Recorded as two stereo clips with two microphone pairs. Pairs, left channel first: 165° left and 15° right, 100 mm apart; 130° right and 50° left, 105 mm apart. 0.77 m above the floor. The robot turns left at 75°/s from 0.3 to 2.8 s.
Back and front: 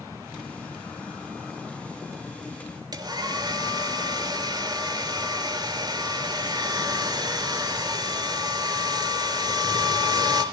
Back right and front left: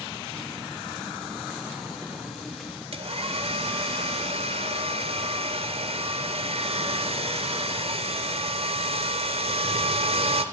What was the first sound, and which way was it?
A hair dryer, 35° left.